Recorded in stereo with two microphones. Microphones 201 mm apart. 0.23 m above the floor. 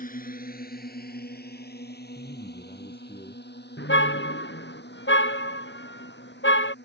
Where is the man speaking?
25° left (ahead or behind).